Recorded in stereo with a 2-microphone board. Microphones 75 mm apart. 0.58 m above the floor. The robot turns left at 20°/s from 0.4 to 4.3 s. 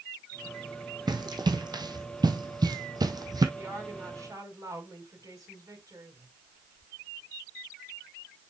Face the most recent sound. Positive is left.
turn(degrees=-55)  # may be behind; listen again after turning